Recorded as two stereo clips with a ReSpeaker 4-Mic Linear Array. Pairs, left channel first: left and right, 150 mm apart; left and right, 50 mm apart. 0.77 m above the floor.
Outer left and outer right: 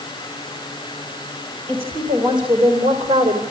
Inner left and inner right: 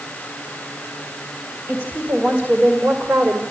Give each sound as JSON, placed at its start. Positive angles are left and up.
{"t": 1.7, "sound": "a woman speaking", "side_deg": -40, "distance_m": 3.0}